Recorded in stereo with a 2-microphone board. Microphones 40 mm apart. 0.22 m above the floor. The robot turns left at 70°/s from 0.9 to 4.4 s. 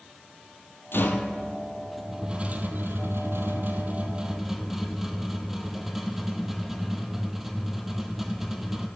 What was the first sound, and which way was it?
A rattle, 70° left.